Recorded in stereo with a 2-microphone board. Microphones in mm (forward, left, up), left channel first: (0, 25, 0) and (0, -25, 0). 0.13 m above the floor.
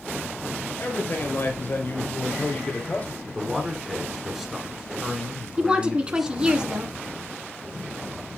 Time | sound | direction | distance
0.8 | a man speaking | 50° left (ahead or behind) | 3 m
3.3 | a man speaking | 5° right (ahead or behind) | 1.9 m
5.6 | a woman speaking | 20° right (ahead or behind) | 1.3 m